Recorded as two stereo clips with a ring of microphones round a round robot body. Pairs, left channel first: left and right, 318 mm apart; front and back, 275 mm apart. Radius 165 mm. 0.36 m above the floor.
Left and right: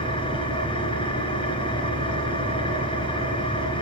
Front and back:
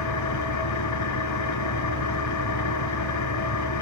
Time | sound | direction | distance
0.0 | an engine running | 15° left | 2.5 m